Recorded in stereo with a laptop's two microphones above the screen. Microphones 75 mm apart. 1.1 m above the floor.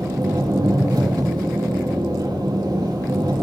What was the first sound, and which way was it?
An engine running, 70° right (ahead or behind).